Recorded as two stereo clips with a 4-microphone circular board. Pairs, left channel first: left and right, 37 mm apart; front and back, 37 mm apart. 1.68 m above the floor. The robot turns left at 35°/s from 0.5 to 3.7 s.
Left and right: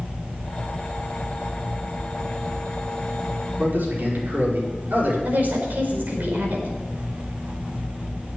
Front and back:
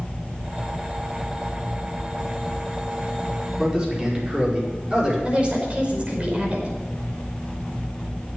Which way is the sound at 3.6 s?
110° right.